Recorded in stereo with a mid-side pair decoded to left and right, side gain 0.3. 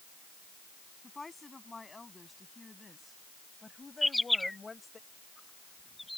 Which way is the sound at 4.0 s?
10° left.